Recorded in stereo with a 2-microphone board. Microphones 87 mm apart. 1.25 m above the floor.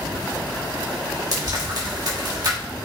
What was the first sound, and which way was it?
Frying, 50° right (ahead or behind).